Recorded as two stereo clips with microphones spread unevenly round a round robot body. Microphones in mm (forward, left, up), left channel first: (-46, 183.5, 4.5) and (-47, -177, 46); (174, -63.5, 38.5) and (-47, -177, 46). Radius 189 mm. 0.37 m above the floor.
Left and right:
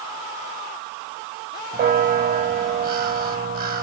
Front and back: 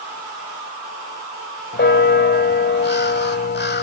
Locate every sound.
1.7 s a bell: 20° right, 1.3 m